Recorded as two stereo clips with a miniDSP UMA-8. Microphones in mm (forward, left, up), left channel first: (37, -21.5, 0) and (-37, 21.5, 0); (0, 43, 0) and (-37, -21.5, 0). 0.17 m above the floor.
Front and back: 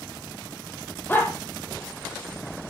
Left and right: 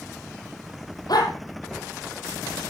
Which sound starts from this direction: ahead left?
A dog barking, at 1.1 s.